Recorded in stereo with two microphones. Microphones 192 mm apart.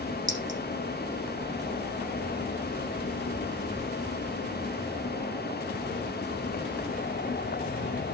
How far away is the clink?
About 6.5 m.